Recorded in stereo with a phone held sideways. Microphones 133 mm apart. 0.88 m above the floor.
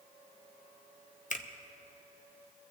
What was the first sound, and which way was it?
A finger snap, 65° left (ahead or behind).